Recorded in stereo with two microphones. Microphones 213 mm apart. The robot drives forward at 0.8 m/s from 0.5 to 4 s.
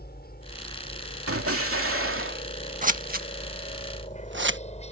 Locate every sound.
0.0 s a helicopter: 45° left (ahead or behind); by 4.9 s 30° left (ahead or behind)
1.3 s an explosion: 80° right; by 2.5 s 65° right (ahead or behind)
2.8 s scissors: 35° right (ahead or behind); by 4.6 s 55° right (ahead or behind)